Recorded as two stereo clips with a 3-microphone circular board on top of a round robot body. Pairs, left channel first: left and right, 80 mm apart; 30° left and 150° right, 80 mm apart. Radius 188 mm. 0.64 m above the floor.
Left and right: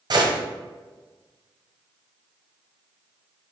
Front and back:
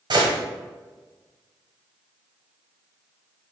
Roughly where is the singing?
No singing in this recording.